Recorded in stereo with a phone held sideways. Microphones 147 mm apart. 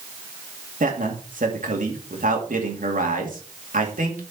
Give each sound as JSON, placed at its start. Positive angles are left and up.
{"t": 0.8, "sound": "a man speaking", "side_deg": -65, "distance_m": 2.5}